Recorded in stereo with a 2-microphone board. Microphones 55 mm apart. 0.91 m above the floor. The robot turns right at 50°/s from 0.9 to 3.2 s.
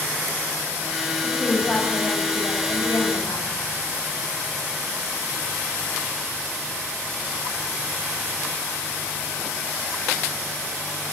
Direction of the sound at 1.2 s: Straight ahead.